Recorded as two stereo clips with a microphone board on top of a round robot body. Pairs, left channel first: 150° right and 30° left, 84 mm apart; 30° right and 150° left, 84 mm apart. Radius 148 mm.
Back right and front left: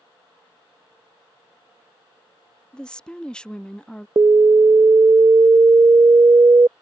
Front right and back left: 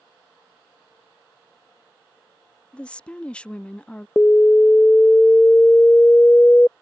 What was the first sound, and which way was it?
A woman speaking, 85° right.